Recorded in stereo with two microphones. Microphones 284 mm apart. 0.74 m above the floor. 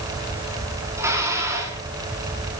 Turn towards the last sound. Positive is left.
turn(degrees=-10)  # may be behind; listen again after turning